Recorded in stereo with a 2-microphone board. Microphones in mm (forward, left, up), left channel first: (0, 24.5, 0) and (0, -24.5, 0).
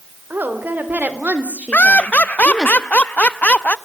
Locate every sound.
0.3 s a woman speaking: 45° right (ahead or behind), 3.5 m; by 2.7 s centre (ahead or behind), 1.5 m
1.7 s laughter: 35° left (ahead or behind), 0.7 m